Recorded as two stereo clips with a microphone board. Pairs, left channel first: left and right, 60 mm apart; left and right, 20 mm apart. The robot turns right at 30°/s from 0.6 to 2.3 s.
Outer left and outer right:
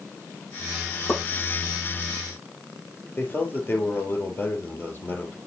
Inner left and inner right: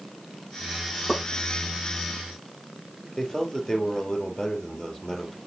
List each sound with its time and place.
1.1 s a pop: 45° left (ahead or behind), 6.5 m; by 1.2 s 50° left (ahead or behind), 6.5 m
3.2 s a man speaking: 35° left (ahead or behind), 3 m